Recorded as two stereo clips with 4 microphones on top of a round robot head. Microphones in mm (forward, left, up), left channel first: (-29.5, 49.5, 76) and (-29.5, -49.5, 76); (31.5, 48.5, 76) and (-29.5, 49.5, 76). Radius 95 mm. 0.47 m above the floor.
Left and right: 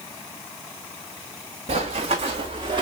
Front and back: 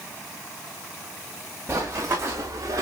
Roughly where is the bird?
No bird in this recording.